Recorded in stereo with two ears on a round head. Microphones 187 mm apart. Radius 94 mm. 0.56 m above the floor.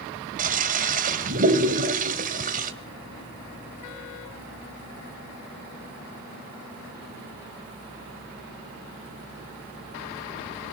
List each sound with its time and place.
0.4 s a toilet flushing: 40° right (ahead or behind), 2.5 m